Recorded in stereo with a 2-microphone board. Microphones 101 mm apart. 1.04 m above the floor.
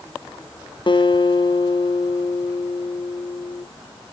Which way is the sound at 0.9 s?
55° left (ahead or behind).